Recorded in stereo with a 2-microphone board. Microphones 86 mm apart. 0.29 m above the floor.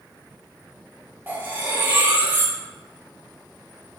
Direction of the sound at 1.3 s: 20° right (ahead or behind).